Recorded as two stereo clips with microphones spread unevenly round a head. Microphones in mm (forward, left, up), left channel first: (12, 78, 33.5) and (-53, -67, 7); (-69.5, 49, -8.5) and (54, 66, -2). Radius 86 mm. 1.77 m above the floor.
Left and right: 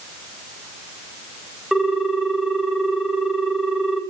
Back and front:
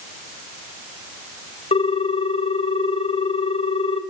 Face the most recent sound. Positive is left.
turn(degrees=155)